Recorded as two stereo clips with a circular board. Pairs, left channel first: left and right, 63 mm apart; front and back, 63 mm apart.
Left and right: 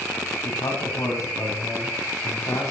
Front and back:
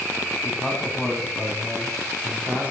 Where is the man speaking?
85° left, 3 m; by 2.7 s 115° left, 3 m.